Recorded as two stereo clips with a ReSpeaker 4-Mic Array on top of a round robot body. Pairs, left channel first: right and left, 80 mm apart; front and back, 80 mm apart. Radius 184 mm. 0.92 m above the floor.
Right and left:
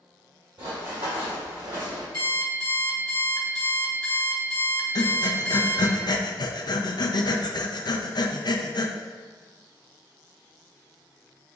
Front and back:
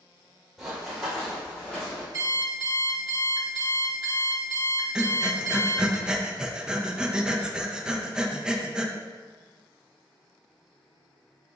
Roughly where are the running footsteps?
Left.